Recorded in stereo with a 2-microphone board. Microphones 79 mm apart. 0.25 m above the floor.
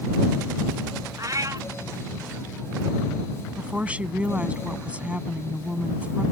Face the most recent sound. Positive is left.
turn(degrees=-15)  # may be behind; listen again after turning